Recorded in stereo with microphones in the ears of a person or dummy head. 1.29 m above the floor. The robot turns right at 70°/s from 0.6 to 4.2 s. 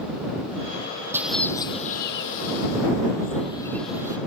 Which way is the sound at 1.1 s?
15° right.